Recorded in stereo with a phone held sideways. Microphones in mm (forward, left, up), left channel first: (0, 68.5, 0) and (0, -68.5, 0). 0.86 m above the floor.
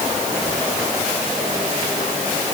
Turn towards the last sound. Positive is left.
No sound to turn to.